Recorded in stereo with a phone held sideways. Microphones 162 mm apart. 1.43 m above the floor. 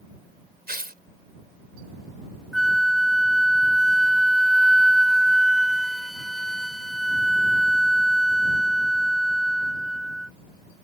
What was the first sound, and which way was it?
Tearing paper, 75° right (ahead or behind).